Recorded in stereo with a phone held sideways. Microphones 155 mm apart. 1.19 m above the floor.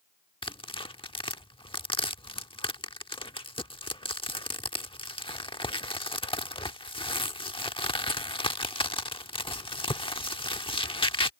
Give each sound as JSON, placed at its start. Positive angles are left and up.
{"t": 0.4, "sound": "tearing paper", "side_deg": 35}